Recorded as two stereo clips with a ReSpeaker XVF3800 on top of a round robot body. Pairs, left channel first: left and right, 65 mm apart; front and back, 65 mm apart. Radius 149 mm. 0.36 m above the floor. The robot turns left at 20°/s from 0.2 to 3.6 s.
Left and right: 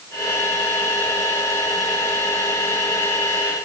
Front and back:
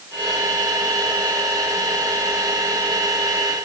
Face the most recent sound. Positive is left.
No sound to turn to.